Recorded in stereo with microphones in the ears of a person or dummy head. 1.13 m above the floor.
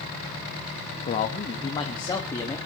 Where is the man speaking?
40° left (ahead or behind), 1.4 m; by 2.6 s 15° left (ahead or behind), 2 m.